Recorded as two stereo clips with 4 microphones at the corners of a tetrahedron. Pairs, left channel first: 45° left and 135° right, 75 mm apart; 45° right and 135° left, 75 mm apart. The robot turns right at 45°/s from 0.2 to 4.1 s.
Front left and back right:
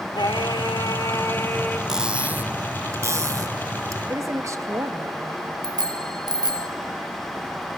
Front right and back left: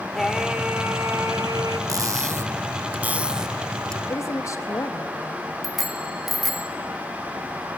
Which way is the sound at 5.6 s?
140° right.